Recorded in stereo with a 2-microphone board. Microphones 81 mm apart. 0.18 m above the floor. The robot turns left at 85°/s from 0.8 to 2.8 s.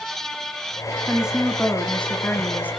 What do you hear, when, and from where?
1.1 s a woman speaking: 15° right (ahead or behind), 1.6 m; by 2.7 s 20° left (ahead or behind), 1.6 m